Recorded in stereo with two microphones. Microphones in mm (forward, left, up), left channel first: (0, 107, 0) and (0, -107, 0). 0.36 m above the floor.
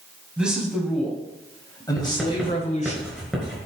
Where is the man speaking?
5° right (ahead or behind), 3 m; by 3.0 s 35° left (ahead or behind), 2 m.